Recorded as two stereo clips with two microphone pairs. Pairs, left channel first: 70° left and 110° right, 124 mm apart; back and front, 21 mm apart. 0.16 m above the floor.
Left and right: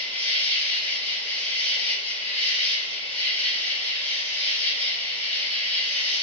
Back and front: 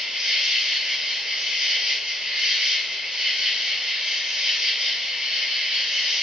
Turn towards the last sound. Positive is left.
turn(degrees=0)